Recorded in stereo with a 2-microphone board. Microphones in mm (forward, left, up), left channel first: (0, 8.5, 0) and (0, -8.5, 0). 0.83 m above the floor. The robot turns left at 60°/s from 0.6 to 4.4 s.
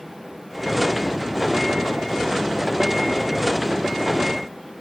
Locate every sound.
Only background noise.